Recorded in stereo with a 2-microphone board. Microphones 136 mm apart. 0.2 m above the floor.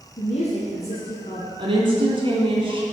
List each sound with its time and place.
0.2 s a woman speaking: 60° left (ahead or behind), 2.5 m; by 1.5 s 45° left (ahead or behind), 2 m
1.6 s a woman speaking: 40° right (ahead or behind), 2.5 m